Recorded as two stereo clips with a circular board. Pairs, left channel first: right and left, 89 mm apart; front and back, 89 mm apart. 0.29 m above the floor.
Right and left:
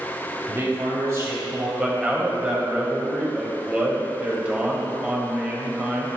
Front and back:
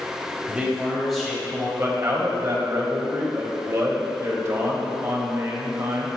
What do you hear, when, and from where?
0.5 s a man speaking: 115° left, 1.6 m; by 1.7 s 75° left, 1.8 m
1.8 s a man speaking: 160° left, 1.1 m